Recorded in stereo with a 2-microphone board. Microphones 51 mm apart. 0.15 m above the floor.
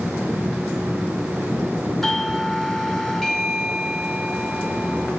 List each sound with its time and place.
2.0 s a doorbell: 5° left (ahead or behind), 1.9 m